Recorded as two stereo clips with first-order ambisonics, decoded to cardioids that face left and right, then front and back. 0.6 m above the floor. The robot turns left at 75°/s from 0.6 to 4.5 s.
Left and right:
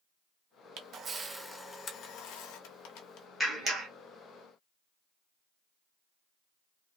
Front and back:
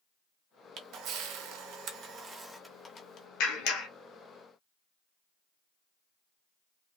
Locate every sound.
0.8 s a camera shutter: 130° right, 0.6 m; by 3.3 s 45° left, 0.6 m
3.4 s a clap: straight ahead, 1.0 m; by 3.9 s 40° right, 1.0 m